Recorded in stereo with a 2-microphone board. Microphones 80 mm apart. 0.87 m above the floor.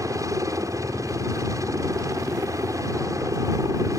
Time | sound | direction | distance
0.0 | a helicopter | 45° right (ahead or behind) | ?